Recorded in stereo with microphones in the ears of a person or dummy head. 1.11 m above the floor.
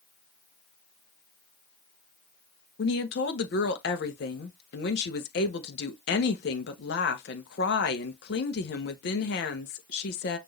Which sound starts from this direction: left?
A woman speaking, at 2.8 s.